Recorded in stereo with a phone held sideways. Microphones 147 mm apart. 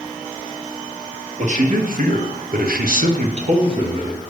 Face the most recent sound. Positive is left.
turn(degrees=-25)  # may be behind; listen again after turning